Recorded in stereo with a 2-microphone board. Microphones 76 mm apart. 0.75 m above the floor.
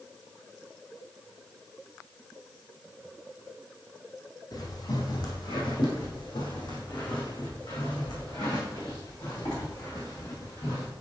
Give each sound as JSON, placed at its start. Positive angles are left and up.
{"t": 4.5, "sound": "footsteps", "side_deg": 55, "distance_m": 2.0}